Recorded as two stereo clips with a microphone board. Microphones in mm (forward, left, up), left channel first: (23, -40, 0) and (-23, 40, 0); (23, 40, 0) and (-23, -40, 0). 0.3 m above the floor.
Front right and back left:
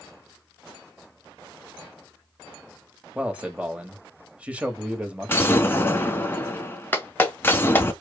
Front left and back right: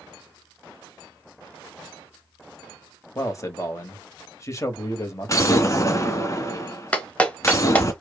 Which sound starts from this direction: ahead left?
A man speaking, at 3.1 s.